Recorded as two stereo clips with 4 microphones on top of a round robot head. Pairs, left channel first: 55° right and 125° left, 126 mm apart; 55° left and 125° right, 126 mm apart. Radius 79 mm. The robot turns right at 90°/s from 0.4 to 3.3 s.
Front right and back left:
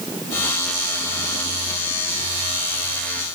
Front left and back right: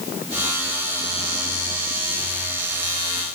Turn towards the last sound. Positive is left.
No sound to turn to.